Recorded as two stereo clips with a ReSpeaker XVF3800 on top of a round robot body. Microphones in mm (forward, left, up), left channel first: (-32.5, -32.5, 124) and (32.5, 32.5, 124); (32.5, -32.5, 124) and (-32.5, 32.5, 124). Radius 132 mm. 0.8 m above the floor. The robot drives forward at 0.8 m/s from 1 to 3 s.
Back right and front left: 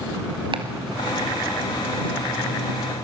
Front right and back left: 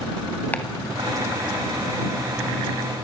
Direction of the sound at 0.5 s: 25° left.